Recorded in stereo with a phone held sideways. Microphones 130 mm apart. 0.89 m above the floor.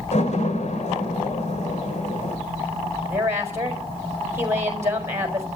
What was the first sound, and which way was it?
A door slam, 60° left (ahead or behind).